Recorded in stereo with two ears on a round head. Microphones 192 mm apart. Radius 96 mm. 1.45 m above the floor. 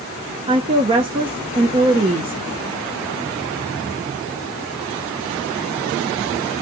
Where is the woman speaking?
25° right (ahead or behind), 0.7 m.